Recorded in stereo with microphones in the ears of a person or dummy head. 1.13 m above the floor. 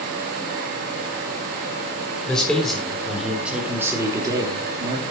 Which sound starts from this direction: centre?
A man speaking, at 2.3 s.